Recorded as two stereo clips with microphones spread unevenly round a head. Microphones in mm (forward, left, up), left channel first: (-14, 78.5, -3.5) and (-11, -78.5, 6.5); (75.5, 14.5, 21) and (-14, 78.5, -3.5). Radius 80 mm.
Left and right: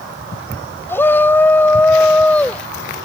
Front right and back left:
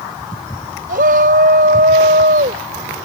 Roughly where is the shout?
Behind.